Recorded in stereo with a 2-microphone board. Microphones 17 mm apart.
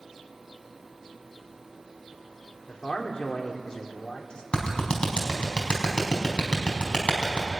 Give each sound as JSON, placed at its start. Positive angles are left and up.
{"t": 2.7, "sound": "a man speaking", "side_deg": 55, "distance_m": 3.0}
{"t": 4.5, "sound": "a clap", "side_deg": 65, "distance_m": 4.5}